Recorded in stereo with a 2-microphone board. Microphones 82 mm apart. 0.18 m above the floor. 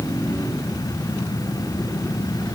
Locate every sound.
Only background noise.